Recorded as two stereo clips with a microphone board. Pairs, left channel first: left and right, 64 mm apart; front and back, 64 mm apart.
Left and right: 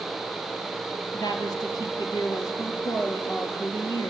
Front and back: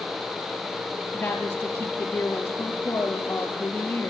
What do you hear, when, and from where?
1.1 s a woman speaking: 65° left, 6 m